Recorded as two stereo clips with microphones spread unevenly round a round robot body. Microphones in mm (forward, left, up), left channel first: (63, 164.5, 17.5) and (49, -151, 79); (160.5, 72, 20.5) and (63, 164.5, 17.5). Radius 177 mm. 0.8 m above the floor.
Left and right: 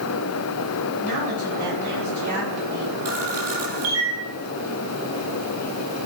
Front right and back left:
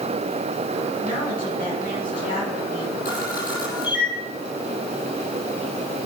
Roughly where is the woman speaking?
Right.